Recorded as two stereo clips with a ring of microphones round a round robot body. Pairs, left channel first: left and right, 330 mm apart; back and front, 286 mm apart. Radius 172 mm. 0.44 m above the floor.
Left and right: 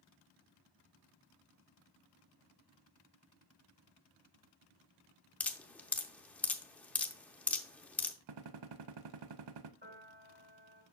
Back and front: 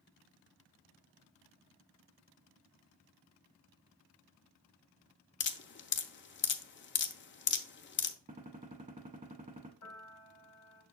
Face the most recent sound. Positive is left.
turn(degrees=-145)